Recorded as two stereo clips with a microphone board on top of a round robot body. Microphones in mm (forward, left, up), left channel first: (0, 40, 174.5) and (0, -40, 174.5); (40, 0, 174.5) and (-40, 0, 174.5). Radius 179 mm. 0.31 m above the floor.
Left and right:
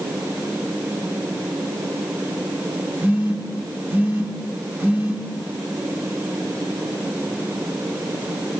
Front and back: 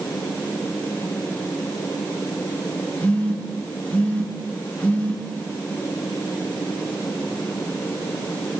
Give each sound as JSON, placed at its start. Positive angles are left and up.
{"t": 3.0, "sound": "a phone buzzing", "azimuth_deg": -50, "distance_m": 1.3}